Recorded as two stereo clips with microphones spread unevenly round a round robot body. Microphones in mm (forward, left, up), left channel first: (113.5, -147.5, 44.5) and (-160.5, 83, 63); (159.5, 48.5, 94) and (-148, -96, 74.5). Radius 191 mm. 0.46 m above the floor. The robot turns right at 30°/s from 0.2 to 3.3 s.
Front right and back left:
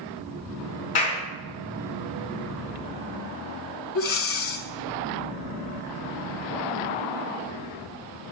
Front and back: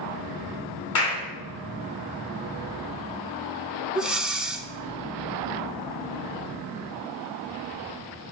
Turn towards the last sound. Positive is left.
turn(degrees=-70)